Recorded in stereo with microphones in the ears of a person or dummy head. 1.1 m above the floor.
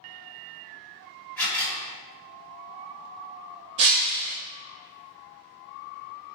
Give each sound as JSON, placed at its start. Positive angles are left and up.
{"t": 1.4, "sound": "a camera shutter", "side_deg": 10, "distance_m": 1.3}
{"t": 3.8, "sound": "breaking glass", "side_deg": -35, "distance_m": 0.6}